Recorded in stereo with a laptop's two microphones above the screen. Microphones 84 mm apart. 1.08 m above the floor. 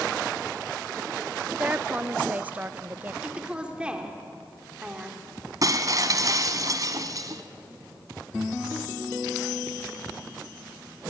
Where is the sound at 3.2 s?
15° right (ahead or behind), 2.5 m.